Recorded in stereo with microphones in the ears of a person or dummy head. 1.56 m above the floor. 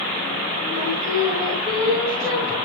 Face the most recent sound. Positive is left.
turn(degrees=-15)  # may be behind; listen again after turning